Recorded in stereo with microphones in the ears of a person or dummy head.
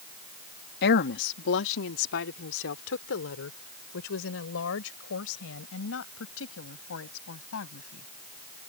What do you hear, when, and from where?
0.8 s a woman speaking: 60° left (ahead or behind); by 8.1 s 85° left